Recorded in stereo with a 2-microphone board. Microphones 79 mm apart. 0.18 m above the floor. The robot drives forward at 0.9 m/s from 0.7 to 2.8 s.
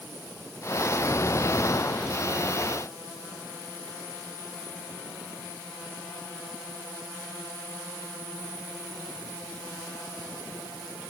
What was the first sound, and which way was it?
Only background noise.